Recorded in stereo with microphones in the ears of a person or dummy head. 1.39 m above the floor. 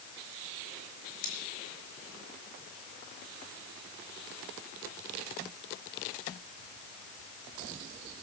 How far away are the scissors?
About 4.5 m.